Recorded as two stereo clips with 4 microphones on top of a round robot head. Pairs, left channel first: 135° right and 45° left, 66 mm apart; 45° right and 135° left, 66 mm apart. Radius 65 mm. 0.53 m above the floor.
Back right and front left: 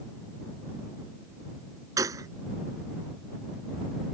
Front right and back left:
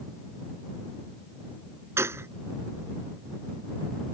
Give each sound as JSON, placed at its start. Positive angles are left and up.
{"t": 2.0, "sound": "a gunshot", "azimuth_deg": 85}